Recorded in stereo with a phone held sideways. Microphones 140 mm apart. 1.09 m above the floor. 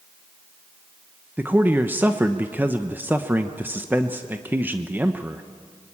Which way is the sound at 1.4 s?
15° right (ahead or behind).